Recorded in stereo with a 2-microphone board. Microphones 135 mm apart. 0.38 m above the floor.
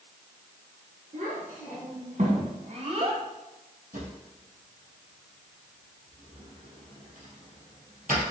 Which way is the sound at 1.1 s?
80° right.